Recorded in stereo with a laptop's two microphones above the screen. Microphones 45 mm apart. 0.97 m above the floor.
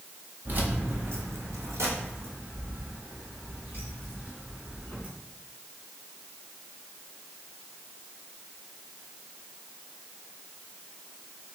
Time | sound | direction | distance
0.5 | keys jangling | 45° right (ahead or behind) | 1.0 m